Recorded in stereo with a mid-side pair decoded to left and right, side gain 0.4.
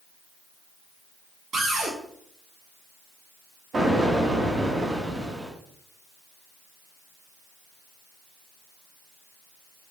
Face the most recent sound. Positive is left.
turn(degrees=-50)